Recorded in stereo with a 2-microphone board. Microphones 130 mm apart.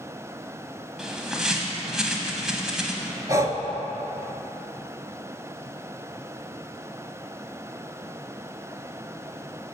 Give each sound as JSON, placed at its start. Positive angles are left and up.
{"t": 1.0, "sound": "a bird", "side_deg": -5, "distance_m": 0.8}
{"t": 3.3, "sound": "breathing", "side_deg": -25, "distance_m": 0.5}